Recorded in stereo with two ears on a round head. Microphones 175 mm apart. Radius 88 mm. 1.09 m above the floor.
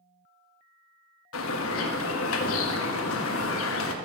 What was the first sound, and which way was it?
A bird, 70° left (ahead or behind).